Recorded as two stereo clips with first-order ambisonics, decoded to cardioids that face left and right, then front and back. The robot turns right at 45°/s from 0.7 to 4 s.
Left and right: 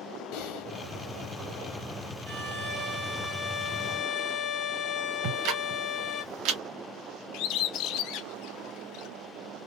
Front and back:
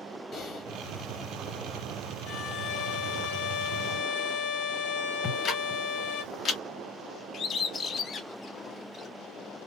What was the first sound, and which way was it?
Typing on a keyboard, 70° left.